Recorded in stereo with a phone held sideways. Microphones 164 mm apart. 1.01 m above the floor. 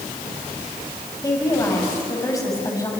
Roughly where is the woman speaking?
Left.